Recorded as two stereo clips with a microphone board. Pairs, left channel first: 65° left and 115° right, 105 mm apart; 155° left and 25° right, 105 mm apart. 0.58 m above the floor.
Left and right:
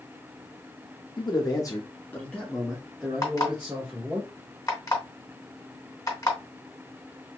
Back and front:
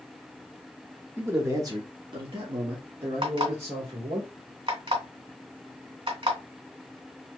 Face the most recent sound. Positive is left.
turn(degrees=10)